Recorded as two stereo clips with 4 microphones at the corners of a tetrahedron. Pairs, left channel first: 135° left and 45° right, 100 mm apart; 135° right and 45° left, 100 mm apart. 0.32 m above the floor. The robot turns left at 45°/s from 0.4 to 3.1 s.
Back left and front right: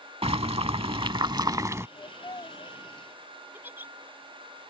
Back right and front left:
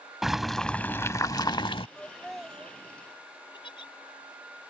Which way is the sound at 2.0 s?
150° left.